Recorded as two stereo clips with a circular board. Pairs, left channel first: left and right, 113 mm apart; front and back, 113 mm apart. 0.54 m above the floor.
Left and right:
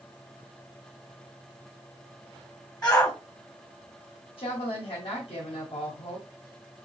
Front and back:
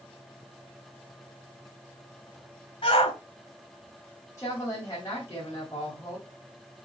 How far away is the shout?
About 2.5 m.